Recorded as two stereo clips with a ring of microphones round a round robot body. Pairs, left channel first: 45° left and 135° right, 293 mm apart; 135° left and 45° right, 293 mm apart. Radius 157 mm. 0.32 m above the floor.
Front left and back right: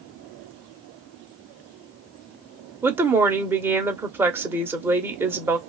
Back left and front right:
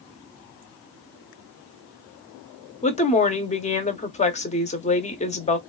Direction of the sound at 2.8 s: 155° left.